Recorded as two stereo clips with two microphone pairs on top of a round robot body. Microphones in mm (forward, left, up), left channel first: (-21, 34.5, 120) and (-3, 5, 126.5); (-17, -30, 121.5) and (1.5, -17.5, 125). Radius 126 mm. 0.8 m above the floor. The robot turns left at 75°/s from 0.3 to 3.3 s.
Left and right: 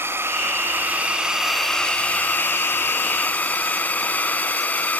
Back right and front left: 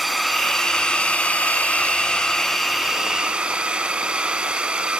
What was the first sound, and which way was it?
A drone, 55° right.